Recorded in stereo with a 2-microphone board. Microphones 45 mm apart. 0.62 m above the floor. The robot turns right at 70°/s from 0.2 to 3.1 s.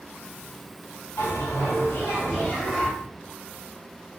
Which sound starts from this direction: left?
A bell, at 1.2 s.